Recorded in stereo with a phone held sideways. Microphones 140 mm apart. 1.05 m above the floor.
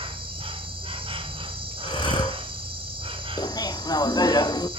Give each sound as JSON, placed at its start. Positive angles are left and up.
{"t": 0.0, "sound": "an insect", "side_deg": -40, "distance_m": 1.0}
{"t": 1.8, "sound": "breathing", "side_deg": 35, "distance_m": 2.0}
{"t": 3.4, "sound": "laughter", "side_deg": 30, "distance_m": 0.6}